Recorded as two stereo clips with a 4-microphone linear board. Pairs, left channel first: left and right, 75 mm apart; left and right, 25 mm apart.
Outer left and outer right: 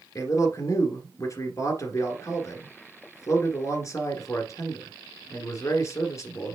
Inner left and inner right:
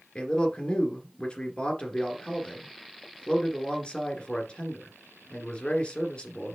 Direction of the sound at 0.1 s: 45° left (ahead or behind).